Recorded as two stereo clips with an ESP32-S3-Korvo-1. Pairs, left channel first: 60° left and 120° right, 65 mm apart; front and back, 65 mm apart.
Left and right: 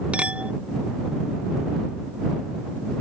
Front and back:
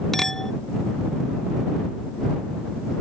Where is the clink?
80° right.